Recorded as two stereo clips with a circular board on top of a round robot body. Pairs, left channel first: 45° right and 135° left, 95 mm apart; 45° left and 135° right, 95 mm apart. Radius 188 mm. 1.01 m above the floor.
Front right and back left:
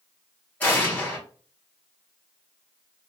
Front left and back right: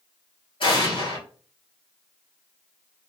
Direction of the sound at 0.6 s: 25° left.